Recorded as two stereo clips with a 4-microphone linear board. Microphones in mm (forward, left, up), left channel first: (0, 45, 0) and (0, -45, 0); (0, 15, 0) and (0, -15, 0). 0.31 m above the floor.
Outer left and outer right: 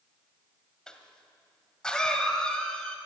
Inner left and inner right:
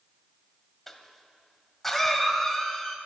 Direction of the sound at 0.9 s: 10° left (ahead or behind).